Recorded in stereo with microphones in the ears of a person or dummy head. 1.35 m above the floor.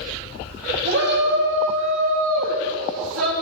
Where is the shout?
60° right (ahead or behind), 2.5 m; by 3.3 s 80° right, 2.5 m.